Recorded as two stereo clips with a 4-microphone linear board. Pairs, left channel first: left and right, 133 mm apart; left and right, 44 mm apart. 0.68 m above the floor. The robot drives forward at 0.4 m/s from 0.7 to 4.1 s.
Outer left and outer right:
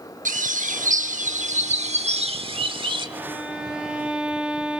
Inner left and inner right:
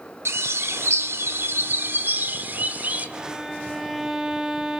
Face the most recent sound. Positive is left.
turn(degrees=-10)  # may be behind; listen again after turning